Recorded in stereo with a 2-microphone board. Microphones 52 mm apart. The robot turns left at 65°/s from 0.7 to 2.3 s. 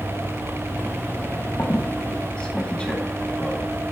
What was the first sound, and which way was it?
A squeak, 45° left (ahead or behind).